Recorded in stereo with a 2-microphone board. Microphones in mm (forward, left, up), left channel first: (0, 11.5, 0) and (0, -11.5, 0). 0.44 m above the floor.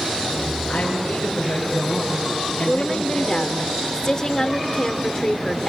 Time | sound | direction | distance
0.7 | a woman speaking | 55° left (ahead or behind) | 5.5 m
2.7 | a woman speaking | 25° left (ahead or behind) | 1.4 m